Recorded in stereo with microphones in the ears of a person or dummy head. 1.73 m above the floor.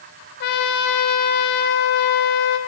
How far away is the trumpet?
About 1.0 m.